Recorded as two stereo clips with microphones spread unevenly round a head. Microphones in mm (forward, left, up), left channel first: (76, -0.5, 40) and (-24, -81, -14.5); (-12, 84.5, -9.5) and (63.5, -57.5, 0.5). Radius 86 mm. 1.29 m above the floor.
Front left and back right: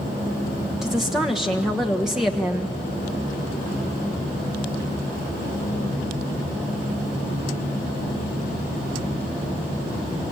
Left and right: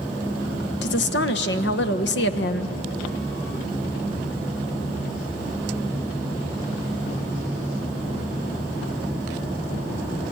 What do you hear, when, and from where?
0.8 s a woman speaking: 140° left, 1.3 m